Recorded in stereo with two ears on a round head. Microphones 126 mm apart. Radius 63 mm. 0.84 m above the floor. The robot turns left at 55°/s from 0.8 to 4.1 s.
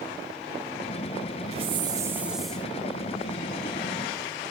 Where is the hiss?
130° right, 1.9 m; by 2.7 s 170° left, 1.9 m.